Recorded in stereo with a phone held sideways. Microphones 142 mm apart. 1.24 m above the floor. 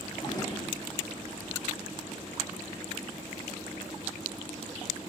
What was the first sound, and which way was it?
A drawer, 30° left (ahead or behind).